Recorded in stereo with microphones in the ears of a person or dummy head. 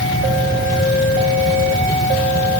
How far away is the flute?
No flute in this recording.